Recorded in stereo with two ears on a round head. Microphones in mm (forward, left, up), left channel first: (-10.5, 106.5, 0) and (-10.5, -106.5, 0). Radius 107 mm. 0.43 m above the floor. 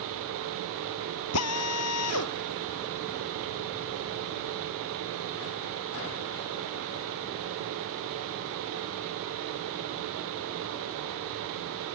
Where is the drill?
75° left (ahead or behind).